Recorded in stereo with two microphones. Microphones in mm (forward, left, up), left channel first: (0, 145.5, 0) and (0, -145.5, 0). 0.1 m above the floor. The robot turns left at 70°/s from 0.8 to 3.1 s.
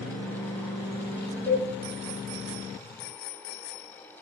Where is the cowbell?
15° left (ahead or behind), 6.5 m; by 1.6 s 25° left (ahead or behind), 6.5 m.